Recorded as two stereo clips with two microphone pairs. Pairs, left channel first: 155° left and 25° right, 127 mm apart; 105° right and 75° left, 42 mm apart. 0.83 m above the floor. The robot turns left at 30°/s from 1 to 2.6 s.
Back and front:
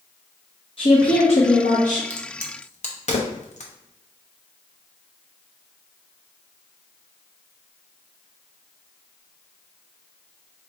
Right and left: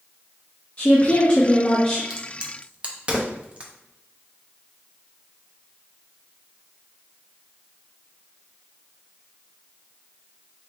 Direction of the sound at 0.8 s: 160° right.